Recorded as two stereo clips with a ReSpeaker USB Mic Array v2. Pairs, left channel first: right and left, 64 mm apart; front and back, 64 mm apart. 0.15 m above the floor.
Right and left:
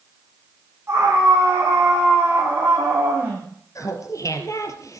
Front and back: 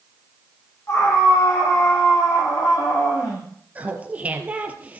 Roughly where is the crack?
I don't hear a crack.